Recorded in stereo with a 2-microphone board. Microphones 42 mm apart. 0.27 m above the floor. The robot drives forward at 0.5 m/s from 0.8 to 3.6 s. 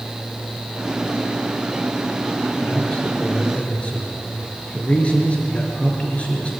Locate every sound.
2.6 s a man speaking: 25° left (ahead or behind), 5.5 m; by 6.5 s 30° left (ahead or behind), 5 m